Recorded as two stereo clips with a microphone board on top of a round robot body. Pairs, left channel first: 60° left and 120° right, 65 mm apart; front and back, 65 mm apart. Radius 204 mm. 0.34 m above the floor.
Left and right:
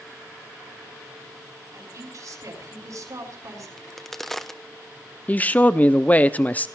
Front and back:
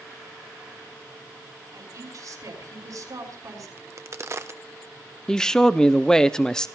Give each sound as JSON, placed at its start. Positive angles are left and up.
{"t": 1.7, "sound": "a woman speaking", "azimuth_deg": -150, "distance_m": 5.5}
{"t": 3.8, "sound": "a crack", "azimuth_deg": 145, "distance_m": 1.3}
{"t": 5.3, "sound": "a man speaking", "azimuth_deg": 65, "distance_m": 0.9}